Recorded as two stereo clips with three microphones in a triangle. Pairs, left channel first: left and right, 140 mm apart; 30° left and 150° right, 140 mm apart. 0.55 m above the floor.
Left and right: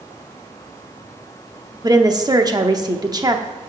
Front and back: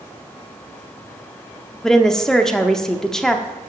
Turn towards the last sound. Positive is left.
turn(degrees=-55)